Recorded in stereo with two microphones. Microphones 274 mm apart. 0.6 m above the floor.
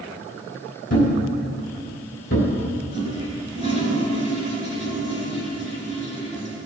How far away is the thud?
About 3 m.